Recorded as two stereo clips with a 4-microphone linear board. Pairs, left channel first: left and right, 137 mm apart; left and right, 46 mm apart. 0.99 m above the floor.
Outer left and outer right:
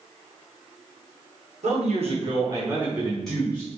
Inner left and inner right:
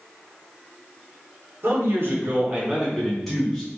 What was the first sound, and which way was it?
A man speaking, 60° right (ahead or behind).